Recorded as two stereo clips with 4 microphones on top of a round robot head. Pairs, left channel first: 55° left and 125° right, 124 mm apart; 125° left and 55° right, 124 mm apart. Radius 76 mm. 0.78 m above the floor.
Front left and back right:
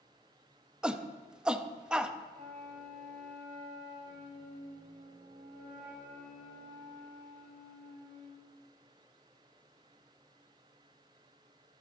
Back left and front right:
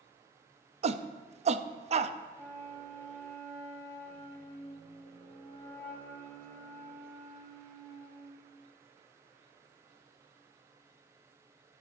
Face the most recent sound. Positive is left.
turn(degrees=-160)